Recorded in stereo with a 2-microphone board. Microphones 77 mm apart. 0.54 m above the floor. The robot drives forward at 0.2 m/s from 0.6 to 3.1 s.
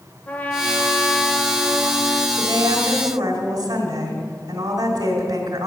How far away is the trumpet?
About 1.5 m.